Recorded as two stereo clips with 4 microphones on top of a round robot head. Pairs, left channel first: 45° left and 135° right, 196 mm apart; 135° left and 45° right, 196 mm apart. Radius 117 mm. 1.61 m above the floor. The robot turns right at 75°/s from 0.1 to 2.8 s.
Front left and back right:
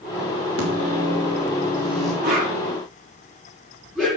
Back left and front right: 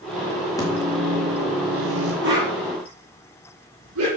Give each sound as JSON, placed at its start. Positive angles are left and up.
{"t": 0.6, "sound": "a microwave", "azimuth_deg": -155, "distance_m": 3.0}
{"t": 2.2, "sound": "a whoosh", "azimuth_deg": -85, "distance_m": 6.5}